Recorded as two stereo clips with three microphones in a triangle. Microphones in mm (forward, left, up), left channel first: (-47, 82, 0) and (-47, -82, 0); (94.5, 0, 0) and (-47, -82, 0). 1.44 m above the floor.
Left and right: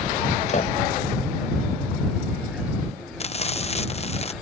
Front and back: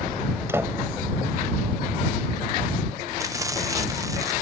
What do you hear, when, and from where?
0.5 s a door slam: 135° left
3.2 s frying: 140° left